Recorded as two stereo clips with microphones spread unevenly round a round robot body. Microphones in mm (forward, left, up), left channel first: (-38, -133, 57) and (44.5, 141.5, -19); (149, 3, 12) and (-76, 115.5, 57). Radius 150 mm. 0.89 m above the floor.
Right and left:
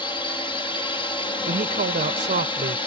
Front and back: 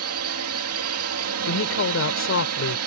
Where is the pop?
I don't hear a pop.